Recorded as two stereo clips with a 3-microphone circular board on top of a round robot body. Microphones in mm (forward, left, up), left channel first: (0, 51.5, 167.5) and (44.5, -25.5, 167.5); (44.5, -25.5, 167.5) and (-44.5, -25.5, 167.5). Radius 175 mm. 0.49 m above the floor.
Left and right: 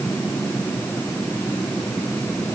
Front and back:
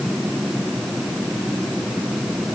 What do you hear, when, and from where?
Only background noise.